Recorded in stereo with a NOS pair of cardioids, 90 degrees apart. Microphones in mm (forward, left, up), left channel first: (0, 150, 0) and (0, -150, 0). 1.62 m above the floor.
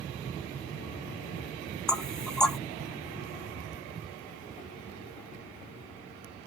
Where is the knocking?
Straight ahead, 0.5 m.